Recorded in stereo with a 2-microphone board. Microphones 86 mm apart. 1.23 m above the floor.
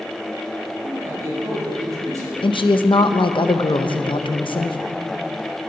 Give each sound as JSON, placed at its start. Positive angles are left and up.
{"t": 0.8, "sound": "a man speaking", "side_deg": -40, "distance_m": 5.0}
{"t": 2.4, "sound": "a woman speaking", "side_deg": 80, "distance_m": 0.8}